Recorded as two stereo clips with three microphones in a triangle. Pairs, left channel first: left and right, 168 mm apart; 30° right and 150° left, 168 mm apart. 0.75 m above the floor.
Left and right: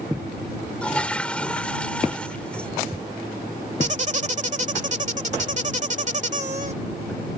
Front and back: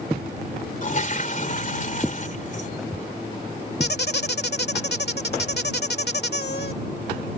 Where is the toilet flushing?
5° left.